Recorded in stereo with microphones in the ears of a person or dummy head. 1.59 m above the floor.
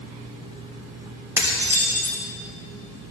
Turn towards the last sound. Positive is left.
turn(degrees=-10)  # may be behind; listen again after turning